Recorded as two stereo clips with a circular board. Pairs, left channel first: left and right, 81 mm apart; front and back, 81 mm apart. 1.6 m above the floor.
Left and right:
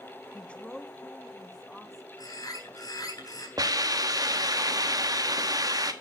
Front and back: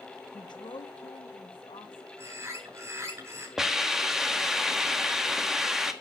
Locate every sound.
0.3 s a woman speaking: 20° left, 1.0 m; by 2.1 s straight ahead, 2.5 m
2.2 s a bird: 125° left, 3.5 m
3.6 s a hiss: 95° right, 1.4 m